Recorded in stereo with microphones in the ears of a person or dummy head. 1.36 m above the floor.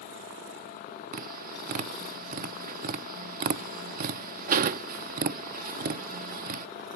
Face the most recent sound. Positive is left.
turn(degrees=-50)  # may be behind; listen again after turning